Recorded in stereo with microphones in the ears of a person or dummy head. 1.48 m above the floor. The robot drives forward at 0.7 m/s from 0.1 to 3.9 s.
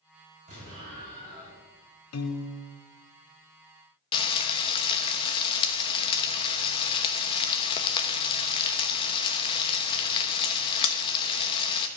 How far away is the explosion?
About 5.5 m.